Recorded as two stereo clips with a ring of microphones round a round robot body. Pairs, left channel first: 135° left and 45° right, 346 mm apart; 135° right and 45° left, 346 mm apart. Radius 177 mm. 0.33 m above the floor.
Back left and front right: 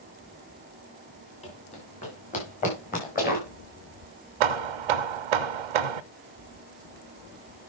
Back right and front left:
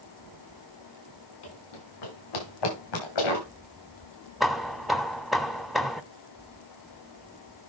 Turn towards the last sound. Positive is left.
turn(degrees=-45)